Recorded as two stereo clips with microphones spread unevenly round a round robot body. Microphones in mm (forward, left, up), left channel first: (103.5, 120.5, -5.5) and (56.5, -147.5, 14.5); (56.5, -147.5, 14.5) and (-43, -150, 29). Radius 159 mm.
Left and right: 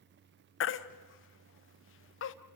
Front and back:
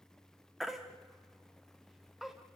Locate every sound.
0.6 s a baby crying: 85° left, 0.8 m